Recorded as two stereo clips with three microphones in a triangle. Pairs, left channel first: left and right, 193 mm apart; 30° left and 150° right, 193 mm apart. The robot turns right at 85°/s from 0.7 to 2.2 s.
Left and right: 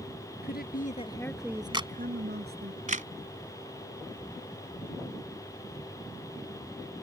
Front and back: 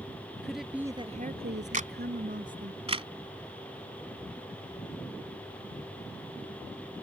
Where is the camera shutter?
145° right; by 3.1 s 105° right.